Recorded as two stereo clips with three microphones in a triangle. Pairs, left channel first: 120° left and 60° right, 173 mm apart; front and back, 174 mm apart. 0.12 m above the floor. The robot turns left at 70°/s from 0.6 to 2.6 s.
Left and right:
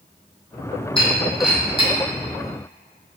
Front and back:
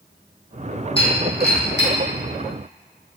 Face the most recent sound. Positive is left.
turn(degrees=-55)